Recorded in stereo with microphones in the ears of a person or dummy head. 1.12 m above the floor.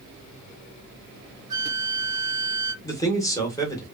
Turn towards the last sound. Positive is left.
turn(degrees=15)  # may be behind; listen again after turning